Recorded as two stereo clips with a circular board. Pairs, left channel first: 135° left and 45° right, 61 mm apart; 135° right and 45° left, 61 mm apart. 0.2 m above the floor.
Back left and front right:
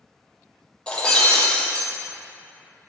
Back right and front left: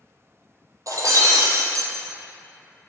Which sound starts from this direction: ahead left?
Breaking glass, at 0.9 s.